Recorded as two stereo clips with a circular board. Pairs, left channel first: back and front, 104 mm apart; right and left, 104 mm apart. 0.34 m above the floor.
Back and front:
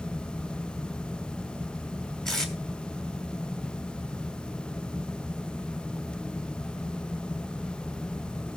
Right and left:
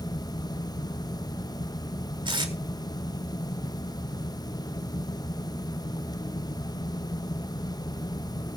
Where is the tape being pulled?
95° left, 2 m.